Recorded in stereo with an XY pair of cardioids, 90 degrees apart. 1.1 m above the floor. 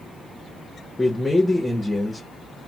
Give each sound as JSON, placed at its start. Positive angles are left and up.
{"t": 1.0, "sound": "a man speaking", "azimuth_deg": 15, "distance_m": 0.8}